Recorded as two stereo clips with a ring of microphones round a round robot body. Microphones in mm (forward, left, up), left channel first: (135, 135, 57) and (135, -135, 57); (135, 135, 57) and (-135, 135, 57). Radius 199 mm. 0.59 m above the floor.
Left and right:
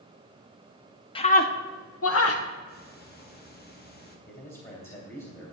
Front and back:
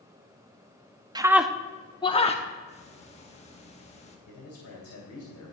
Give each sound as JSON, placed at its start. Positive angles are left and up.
{"t": 1.1, "sound": "a scream", "azimuth_deg": 130, "distance_m": 0.6}
{"t": 2.7, "sound": "ticking", "azimuth_deg": 55, "distance_m": 1.6}
{"t": 4.3, "sound": "a man speaking", "azimuth_deg": 30, "distance_m": 2.5}